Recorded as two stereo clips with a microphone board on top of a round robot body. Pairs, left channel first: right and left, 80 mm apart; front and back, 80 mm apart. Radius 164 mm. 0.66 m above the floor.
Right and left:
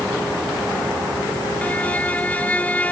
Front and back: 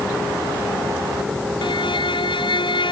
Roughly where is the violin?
Ahead.